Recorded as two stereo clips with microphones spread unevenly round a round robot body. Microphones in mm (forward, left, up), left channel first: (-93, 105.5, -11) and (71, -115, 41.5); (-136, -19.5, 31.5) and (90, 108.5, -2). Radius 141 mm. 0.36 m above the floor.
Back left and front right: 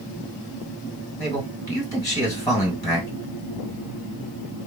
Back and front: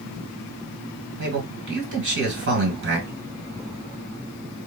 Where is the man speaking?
55° left, 2 m.